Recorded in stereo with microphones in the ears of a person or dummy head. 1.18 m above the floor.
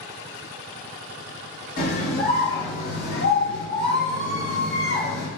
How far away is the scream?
About 1.8 m.